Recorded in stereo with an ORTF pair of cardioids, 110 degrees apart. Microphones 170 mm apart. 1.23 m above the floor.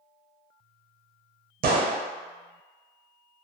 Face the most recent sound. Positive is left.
turn(degrees=-60)